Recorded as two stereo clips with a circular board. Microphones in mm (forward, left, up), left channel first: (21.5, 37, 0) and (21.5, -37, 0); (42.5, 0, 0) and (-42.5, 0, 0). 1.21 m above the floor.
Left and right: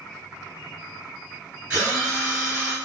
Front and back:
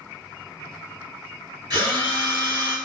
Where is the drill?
155° right, 1.7 m.